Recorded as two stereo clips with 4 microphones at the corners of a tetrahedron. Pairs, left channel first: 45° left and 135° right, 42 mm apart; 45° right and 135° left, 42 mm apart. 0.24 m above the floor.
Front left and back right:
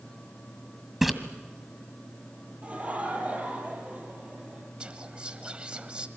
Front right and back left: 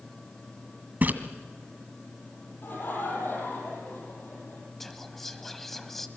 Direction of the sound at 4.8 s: 120° right.